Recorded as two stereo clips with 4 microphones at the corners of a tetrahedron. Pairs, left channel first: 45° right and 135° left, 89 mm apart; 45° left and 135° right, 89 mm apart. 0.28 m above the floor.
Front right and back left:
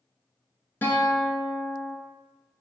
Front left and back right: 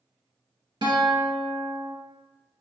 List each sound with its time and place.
0.8 s a guitar: 110° right, 0.9 m